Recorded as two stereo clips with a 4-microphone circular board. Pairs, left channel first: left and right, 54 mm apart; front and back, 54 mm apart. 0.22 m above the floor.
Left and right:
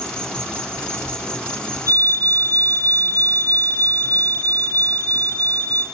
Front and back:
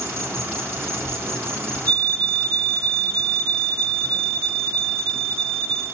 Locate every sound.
0.0 s an insect: 155° left, 2 m
1.9 s a fire alarm: 65° left, 4.5 m